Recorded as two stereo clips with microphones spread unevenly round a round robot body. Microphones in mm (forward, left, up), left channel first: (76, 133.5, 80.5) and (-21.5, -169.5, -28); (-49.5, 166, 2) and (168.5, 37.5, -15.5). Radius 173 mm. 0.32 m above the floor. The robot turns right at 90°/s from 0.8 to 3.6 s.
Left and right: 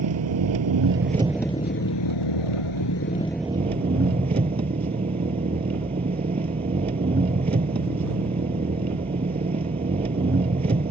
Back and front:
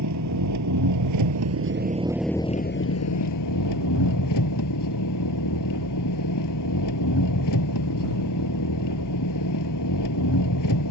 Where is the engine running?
70° right; by 10.9 s straight behind.